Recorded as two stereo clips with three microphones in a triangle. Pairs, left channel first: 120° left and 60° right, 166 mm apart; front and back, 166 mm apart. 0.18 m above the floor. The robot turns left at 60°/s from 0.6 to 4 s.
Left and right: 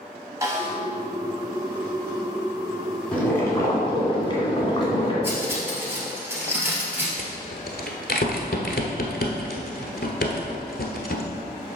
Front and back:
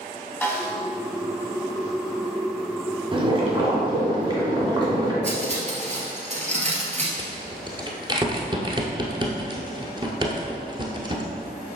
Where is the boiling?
160° right, 1.9 m; by 5.1 s 145° left, 1.9 m.